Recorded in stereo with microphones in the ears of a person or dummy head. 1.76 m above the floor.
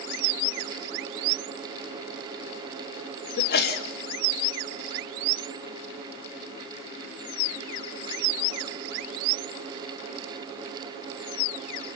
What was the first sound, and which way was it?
A sneeze, 55° left (ahead or behind).